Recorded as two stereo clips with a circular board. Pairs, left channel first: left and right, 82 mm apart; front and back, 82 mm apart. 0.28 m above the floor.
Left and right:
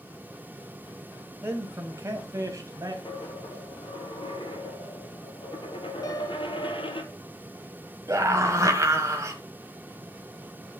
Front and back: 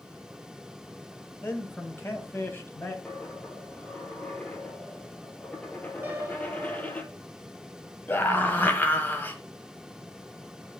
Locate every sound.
1.4 s a man speaking: 45° right, 1.9 m; by 3.0 s 60° right, 2.5 m
3.0 s a dropped coin: 75° left, 1.4 m
6.0 s a piano: 120° left, 1.3 m
8.1 s a scream: 55° right, 1.5 m